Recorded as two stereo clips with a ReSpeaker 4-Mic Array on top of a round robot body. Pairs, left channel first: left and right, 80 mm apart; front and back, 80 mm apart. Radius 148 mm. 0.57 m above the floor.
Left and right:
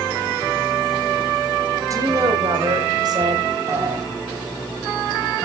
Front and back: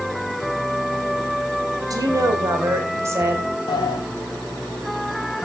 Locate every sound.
1.9 s a woman speaking: 140° right, 4 m; by 3.5 s 120° right, 5 m
3.7 s a sliding door: 35° right, 0.8 m